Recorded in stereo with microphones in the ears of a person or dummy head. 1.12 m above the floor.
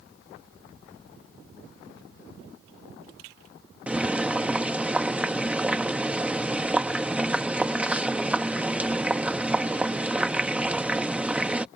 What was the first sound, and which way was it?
Boiling, 10° right (ahead or behind).